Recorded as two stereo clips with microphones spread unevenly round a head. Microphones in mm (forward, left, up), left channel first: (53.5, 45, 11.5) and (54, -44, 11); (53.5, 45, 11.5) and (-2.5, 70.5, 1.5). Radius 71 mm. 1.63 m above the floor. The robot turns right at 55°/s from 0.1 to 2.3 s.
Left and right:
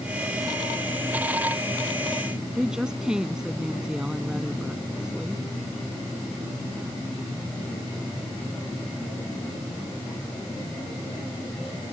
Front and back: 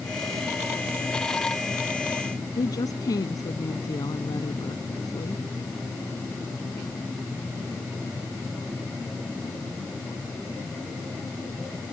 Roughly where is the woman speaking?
Ahead.